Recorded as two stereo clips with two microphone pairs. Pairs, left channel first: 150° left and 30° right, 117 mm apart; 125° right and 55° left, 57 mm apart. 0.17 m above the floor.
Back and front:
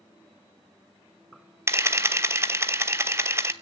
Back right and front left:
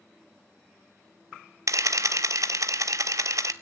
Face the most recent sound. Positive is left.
turn(degrees=40)